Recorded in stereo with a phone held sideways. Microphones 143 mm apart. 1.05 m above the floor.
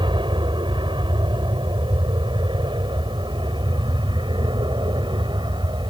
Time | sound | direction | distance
0.0 | an aircraft | 35° right (ahead or behind) | ?